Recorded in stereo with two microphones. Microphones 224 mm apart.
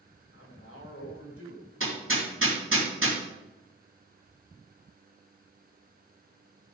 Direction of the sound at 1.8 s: 70° right (ahead or behind).